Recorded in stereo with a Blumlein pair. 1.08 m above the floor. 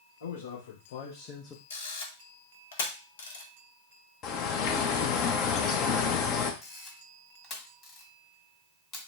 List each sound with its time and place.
0.2 s a man speaking: 65° left, 1.2 m; by 1.6 s 15° left, 0.5 m
1.7 s a camera shutter: 60° left, 0.9 m
4.2 s a bird: 35° left, 0.7 m
6.6 s a camera shutter: 25° left, 1.5 m